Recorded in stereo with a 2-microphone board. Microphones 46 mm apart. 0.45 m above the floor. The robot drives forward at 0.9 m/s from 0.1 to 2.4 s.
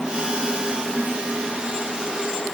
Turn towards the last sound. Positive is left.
No sound to turn to.